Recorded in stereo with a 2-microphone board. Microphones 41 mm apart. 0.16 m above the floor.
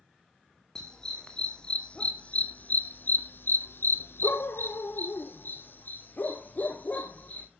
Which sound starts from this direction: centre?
A dog barking, at 0.8 s.